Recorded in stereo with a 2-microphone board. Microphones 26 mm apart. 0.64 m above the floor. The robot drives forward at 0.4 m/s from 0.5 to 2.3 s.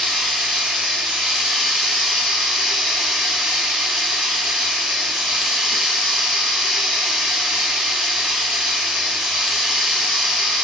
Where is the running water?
60° right (ahead or behind), 1.3 m.